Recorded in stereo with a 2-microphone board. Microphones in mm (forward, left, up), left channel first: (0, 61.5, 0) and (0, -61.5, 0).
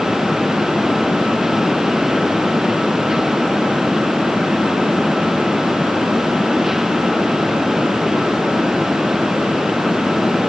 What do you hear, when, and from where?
Only background noise.